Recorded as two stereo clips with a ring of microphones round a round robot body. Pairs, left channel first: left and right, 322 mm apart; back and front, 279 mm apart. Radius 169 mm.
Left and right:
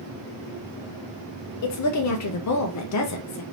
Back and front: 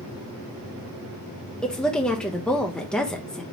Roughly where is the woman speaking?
Left.